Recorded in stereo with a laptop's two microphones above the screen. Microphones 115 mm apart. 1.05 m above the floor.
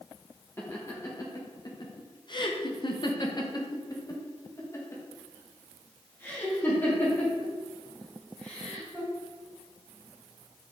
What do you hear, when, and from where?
0.6 s laughter: 25° left (ahead or behind), 1.3 m; by 9.1 s 10° left (ahead or behind), 3.5 m